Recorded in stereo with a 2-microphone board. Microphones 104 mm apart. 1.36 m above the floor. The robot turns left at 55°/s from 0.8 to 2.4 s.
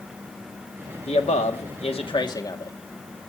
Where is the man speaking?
110° left, 2 m; by 2.8 s 35° left, 2 m.